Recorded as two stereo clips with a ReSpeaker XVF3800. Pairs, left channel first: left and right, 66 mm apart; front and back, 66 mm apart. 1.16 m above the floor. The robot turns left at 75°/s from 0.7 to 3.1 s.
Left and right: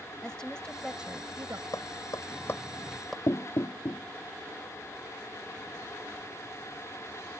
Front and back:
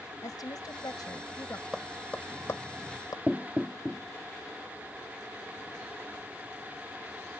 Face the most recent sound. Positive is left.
turn(degrees=95)